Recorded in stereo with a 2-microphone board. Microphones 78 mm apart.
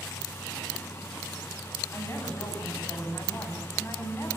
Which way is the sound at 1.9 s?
30° left (ahead or behind).